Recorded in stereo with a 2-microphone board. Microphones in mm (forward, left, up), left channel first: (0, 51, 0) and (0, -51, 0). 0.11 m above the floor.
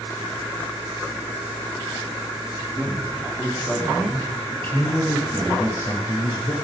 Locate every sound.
2.8 s a man speaking: centre (ahead or behind), 4 m; by 6.5 s 50° left (ahead or behind), 2.5 m